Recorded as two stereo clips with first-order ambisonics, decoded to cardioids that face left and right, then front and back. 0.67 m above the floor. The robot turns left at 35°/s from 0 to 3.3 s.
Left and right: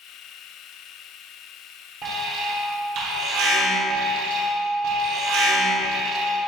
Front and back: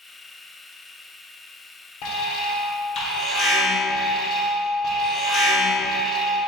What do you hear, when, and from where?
2.0 s an alarm: 20° right, 0.9 m; by 6.4 s 65° right, 0.9 m